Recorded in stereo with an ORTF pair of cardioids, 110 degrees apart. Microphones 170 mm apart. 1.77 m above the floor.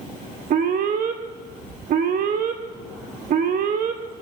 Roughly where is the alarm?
Ahead right.